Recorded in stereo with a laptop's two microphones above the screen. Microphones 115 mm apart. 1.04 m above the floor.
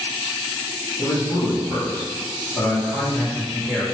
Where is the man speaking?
40° left (ahead or behind), 1.8 m; by 3.9 s 10° left (ahead or behind), 2.5 m.